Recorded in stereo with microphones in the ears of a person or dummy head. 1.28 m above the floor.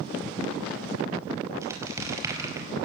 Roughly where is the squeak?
Centre.